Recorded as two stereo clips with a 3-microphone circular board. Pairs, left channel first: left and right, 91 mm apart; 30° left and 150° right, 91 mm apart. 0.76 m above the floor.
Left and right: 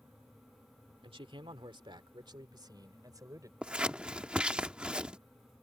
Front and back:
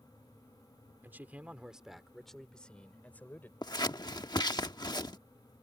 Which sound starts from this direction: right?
A man speaking, at 1.0 s.